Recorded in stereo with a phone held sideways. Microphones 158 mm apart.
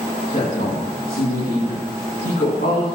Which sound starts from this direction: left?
A woman speaking, at 0.3 s.